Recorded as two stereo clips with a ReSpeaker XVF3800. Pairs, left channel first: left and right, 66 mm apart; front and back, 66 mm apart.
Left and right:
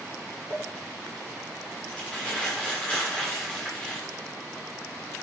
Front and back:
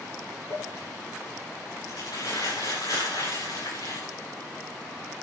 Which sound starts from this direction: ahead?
Crumpling, at 0.5 s.